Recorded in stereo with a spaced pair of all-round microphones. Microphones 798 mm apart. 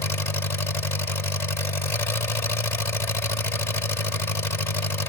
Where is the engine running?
50° left (ahead or behind).